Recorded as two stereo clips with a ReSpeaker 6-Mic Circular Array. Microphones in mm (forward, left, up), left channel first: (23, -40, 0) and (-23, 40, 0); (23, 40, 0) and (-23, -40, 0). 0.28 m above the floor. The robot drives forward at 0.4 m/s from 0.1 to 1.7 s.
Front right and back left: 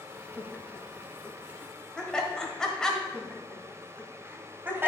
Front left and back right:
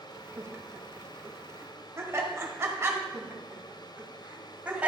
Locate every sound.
0.4 s laughter: 65° right, 1.0 m; by 3.0 s 135° right, 1.1 m
3.1 s laughter: 170° left, 1.7 m